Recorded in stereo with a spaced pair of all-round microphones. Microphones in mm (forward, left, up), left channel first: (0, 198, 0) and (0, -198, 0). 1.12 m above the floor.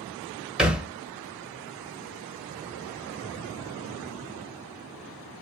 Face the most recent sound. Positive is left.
turn(degrees=-5)  # may be behind; listen again after turning